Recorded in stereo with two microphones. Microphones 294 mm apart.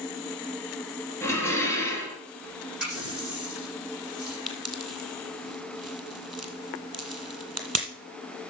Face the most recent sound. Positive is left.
turn(degrees=-55)  # may be behind; listen again after turning